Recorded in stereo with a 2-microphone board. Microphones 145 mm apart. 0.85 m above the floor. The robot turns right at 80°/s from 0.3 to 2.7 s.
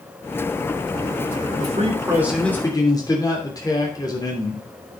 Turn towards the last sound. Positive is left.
turn(degrees=25)